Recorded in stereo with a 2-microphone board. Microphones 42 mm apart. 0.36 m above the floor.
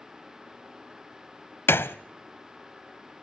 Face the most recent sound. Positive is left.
turn(degrees=75)  # may be behind; listen again after turning